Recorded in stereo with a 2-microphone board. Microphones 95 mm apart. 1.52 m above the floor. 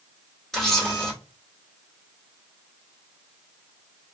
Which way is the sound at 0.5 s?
5° left (ahead or behind).